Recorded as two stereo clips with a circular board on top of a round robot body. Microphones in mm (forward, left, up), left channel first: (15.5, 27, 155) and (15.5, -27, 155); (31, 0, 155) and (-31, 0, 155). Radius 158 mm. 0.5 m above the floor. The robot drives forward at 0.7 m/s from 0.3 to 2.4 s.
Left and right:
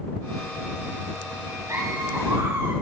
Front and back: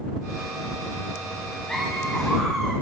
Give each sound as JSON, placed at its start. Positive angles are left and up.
{"t": 1.7, "sound": "laughter", "azimuth_deg": -80, "distance_m": 3.5}